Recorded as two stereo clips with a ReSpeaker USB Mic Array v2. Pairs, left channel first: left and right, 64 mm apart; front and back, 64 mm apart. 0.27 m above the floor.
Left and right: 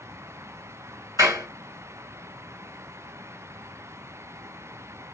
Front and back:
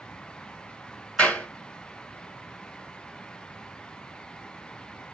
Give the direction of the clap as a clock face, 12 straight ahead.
2 o'clock.